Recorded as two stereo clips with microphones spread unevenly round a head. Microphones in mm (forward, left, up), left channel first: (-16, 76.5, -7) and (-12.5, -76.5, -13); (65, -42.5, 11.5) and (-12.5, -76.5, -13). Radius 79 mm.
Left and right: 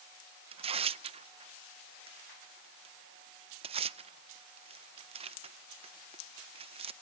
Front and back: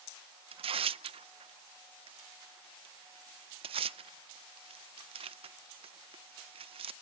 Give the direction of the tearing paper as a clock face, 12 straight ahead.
5 o'clock.